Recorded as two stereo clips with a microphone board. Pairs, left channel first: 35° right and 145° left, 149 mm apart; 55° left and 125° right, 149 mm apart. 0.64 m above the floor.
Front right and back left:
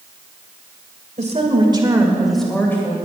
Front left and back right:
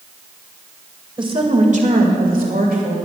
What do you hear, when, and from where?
1.2 s a woman speaking: straight behind, 2 m; by 3.0 s 105° right, 2.5 m